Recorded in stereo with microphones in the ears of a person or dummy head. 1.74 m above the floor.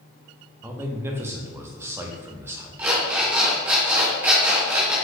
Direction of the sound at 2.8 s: 10° right (ahead or behind).